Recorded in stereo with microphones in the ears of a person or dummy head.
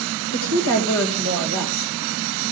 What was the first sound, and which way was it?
A woman speaking, 75° left (ahead or behind).